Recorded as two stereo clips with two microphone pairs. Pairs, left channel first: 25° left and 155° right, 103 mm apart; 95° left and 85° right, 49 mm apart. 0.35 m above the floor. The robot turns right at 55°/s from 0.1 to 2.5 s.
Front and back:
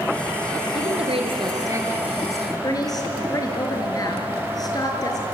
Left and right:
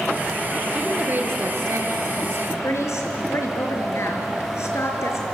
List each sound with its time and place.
0.8 s a woman speaking: 150° right, 4.5 m; by 2.5 s 55° right, 4.5 m
2.6 s a woman speaking: 75° left, 4.5 m